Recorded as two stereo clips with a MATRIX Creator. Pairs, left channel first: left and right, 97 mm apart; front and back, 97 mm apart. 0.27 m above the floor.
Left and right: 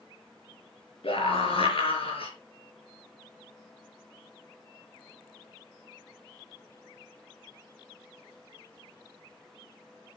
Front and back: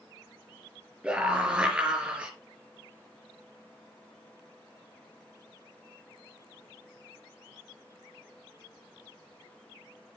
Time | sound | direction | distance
1.0 | a scream | 100° left | 4.5 m